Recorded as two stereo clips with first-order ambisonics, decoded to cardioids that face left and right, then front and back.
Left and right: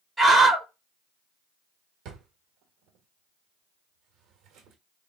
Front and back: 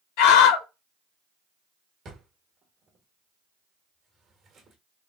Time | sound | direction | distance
0.2 | a scream | 5° right | 1.8 m
2.0 | a drawer | 125° right | 1.5 m